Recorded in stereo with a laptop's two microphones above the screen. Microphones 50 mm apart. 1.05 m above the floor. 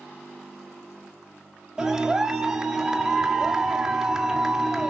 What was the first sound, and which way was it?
A clap, 15° right (ahead or behind).